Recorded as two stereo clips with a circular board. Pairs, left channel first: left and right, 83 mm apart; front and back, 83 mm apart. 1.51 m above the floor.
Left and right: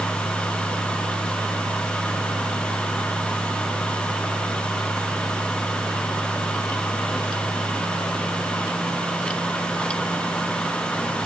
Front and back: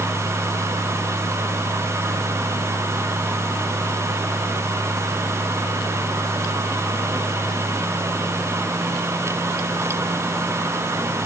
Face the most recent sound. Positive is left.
No sound to turn to.